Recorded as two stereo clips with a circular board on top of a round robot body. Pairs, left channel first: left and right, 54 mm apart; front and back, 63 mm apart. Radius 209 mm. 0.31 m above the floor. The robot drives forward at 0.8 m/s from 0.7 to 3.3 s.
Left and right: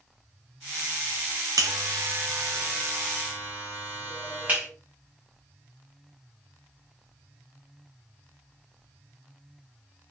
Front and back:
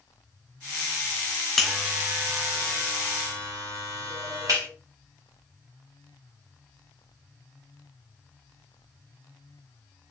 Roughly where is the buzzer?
Right.